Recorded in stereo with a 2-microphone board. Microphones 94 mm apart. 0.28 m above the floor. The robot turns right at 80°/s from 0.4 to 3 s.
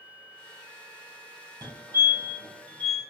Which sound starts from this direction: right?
A fire alarm, at 1.6 s.